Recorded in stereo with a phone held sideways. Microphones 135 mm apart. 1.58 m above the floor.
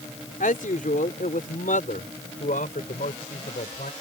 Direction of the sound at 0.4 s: 85° left.